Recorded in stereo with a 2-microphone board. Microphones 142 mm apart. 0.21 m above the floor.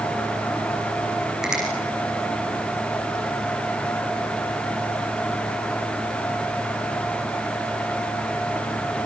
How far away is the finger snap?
About 8.5 m.